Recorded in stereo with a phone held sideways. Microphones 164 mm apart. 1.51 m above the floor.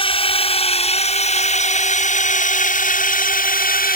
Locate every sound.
0.0 s a drone: 35° left (ahead or behind); by 4.0 s 65° left (ahead or behind)